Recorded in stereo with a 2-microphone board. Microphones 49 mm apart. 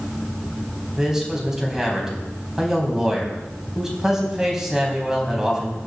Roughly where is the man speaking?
Centre.